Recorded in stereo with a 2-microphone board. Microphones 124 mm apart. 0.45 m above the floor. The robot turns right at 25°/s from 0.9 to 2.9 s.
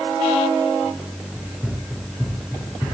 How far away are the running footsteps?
About 1.9 m.